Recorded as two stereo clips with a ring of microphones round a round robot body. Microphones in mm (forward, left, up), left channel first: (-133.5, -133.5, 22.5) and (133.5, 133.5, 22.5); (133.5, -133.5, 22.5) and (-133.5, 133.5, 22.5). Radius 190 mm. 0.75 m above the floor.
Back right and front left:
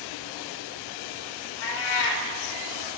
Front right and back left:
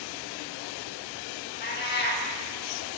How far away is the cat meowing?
About 0.8 m.